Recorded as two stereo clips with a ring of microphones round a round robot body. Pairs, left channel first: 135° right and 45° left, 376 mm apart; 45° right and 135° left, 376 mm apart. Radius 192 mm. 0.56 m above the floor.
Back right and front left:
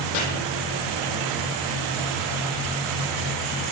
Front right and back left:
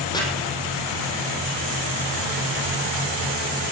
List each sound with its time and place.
0.1 s chopping: 125° right, 4 m